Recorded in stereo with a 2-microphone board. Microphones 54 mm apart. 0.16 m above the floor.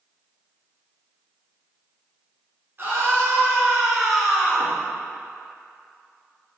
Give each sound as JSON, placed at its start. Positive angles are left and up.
{"t": 2.8, "sound": "a scream", "side_deg": -40, "distance_m": 1.8}